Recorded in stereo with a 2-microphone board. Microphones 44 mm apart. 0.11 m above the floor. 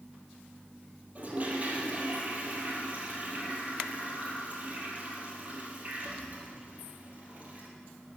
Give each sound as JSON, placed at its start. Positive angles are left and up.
{"t": 1.1, "sound": "a toilet flushing", "side_deg": -35, "distance_m": 3.0}